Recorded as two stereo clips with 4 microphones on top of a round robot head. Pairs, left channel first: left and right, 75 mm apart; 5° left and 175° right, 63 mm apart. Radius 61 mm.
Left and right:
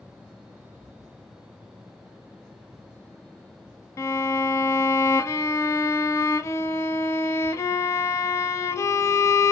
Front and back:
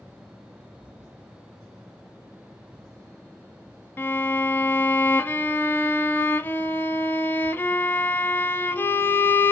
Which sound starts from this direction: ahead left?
A violin, at 4.0 s.